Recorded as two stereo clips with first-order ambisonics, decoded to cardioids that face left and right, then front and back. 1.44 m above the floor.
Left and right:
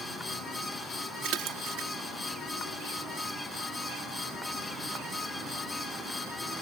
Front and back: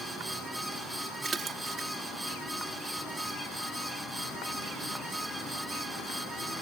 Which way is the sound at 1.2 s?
115° right.